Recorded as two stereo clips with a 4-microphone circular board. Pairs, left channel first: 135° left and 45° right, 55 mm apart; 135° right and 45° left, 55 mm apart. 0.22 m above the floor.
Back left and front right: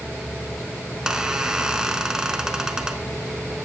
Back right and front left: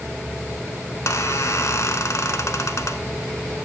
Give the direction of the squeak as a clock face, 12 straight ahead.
4 o'clock.